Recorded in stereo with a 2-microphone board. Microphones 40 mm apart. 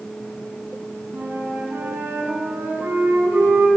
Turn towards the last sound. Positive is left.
turn(degrees=-75)  # may be behind; listen again after turning